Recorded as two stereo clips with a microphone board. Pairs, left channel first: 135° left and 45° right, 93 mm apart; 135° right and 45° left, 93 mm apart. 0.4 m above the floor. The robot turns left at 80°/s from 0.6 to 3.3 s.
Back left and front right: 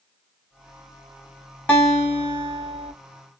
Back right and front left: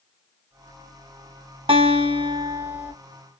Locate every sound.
1.7 s a guitar: 55° left, 2 m; by 2.9 s 40° right, 2 m